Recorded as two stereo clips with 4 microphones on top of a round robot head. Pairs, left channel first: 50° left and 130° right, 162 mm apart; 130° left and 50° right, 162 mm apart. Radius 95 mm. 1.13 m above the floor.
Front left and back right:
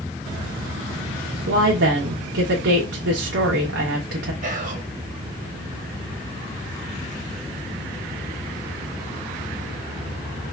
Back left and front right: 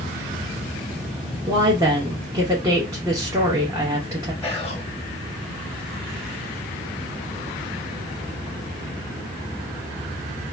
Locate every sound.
1.5 s a woman speaking: 120° right, 0.9 m
4.4 s whispering: 155° right, 0.9 m